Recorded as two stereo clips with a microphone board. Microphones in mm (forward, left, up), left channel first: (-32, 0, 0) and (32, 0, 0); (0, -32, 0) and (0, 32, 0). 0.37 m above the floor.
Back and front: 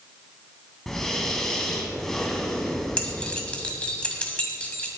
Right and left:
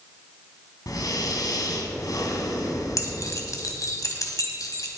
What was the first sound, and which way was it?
Breathing, 95° right.